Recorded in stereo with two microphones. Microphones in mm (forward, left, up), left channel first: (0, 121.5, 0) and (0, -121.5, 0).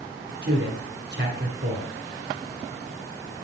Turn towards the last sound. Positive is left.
turn(degrees=-45)  # may be behind; listen again after turning